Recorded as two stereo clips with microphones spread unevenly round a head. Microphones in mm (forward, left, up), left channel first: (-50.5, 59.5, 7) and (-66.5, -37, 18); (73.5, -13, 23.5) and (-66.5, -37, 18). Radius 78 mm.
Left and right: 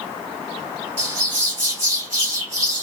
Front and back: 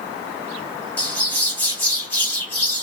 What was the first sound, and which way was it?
A bird, 65° right.